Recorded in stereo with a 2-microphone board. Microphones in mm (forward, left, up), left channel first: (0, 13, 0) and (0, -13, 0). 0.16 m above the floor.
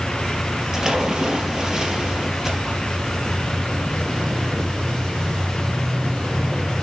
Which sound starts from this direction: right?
A splash, at 0.7 s.